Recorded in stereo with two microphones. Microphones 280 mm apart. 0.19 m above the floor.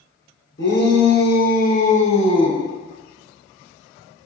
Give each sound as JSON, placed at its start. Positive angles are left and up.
{"t": 0.6, "sound": "a shout", "side_deg": 40, "distance_m": 2.5}